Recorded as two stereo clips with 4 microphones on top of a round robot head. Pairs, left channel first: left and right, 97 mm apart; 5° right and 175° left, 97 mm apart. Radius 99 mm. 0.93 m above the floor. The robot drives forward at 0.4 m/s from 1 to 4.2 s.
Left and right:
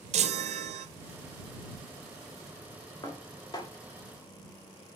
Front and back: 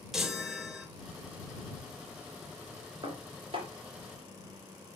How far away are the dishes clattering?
About 2.5 m.